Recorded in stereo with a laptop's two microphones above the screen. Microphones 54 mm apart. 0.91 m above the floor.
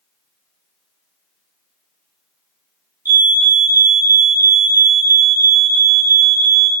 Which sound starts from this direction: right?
A fire alarm, at 3.0 s.